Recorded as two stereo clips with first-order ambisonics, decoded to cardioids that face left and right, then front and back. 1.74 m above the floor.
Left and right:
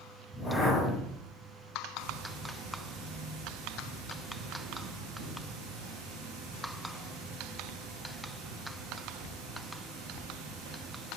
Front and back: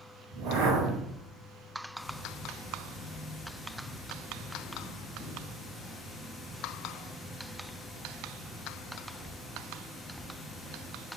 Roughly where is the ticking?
Right.